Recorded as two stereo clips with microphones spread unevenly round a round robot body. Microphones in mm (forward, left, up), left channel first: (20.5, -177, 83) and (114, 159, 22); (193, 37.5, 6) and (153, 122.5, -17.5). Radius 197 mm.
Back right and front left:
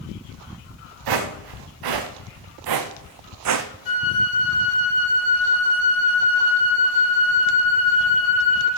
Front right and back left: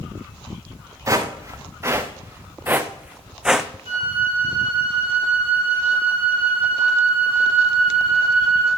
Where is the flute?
80° right, 4.5 m.